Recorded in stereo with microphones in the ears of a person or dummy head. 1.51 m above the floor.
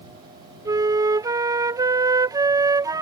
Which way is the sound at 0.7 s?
20° right (ahead or behind).